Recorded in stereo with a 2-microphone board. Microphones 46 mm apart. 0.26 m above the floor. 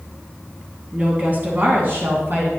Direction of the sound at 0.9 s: 35° right (ahead or behind).